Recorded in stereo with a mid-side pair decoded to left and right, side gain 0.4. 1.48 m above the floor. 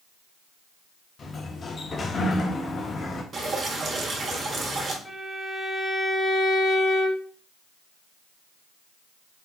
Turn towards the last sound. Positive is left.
turn(degrees=20)